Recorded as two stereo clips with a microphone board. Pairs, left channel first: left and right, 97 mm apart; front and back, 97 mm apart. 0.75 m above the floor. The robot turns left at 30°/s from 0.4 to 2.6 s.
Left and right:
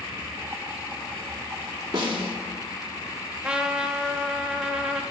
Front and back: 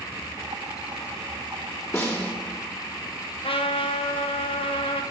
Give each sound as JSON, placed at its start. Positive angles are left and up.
{"t": 1.9, "sound": "a snare drum", "azimuth_deg": -60, "distance_m": 1.8}
{"t": 3.4, "sound": "a trumpet", "azimuth_deg": -10, "distance_m": 0.8}